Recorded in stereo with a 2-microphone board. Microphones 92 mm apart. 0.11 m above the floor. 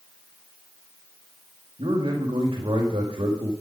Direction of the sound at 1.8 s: 65° right (ahead or behind).